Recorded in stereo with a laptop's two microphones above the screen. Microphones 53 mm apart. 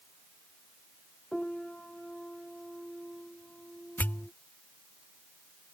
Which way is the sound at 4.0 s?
40° left (ahead or behind).